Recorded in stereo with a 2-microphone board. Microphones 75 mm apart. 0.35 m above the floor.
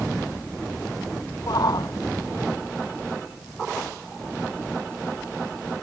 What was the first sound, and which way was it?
A shout, 60° left (ahead or behind).